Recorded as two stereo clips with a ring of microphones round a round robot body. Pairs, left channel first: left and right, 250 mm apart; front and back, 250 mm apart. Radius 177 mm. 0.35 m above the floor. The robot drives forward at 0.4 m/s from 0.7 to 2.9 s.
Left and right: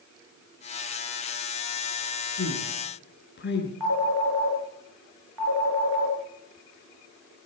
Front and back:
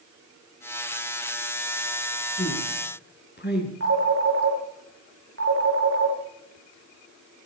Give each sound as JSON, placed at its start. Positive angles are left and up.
{"t": 2.4, "sound": "a woman speaking", "azimuth_deg": 45, "distance_m": 5.5}
{"t": 3.8, "sound": "a phone ringing", "azimuth_deg": -120, "distance_m": 3.5}